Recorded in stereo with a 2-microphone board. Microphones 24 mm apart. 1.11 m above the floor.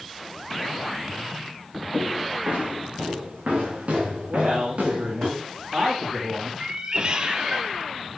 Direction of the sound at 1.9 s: 75° right (ahead or behind).